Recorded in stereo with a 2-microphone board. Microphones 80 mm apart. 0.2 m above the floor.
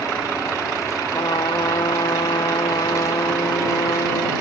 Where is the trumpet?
75° left (ahead or behind).